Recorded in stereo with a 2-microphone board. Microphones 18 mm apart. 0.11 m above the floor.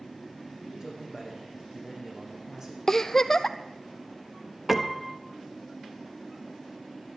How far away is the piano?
About 1.0 m.